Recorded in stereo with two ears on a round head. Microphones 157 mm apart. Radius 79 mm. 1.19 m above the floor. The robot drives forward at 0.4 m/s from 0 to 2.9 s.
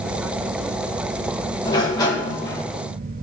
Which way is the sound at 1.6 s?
25° left (ahead or behind).